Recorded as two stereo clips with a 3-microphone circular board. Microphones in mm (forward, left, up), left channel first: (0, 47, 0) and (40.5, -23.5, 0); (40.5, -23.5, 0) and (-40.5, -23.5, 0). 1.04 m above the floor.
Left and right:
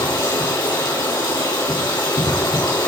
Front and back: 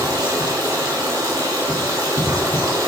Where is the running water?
135° left, 3 m.